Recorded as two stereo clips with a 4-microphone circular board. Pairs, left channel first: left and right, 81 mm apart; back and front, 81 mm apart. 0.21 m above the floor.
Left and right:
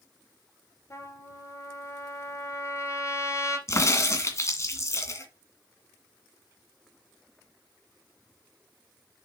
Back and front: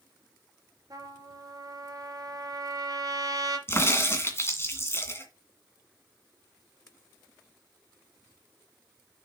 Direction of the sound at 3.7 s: 130° left.